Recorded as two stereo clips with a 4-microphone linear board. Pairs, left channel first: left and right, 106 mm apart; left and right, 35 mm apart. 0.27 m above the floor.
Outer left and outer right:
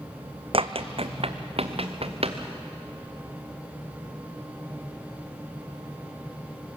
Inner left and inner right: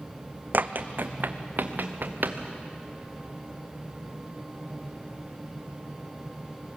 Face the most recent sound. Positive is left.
turn(degrees=-65)  # may be behind; listen again after turning